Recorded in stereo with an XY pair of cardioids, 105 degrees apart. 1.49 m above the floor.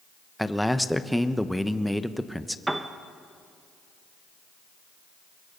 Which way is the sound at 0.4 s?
Straight ahead.